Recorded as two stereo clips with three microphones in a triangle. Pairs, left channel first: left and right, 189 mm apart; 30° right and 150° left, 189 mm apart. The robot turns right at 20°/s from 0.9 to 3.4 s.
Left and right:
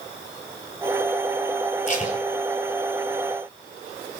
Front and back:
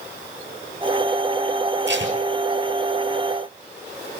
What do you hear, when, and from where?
1.9 s tape being pulled: 140° left, 5.5 m; by 2.2 s 145° left, 5.5 m